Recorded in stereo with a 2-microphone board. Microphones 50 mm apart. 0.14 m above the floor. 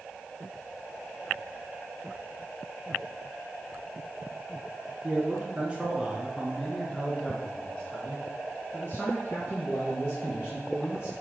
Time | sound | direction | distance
5.0 | a man speaking | 35° right (ahead or behind) | 1.6 m